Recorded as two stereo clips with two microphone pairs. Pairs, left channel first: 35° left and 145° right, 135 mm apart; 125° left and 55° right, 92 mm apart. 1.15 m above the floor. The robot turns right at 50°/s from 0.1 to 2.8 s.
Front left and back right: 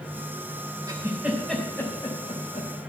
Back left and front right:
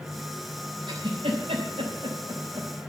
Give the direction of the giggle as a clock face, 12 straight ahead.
3 o'clock.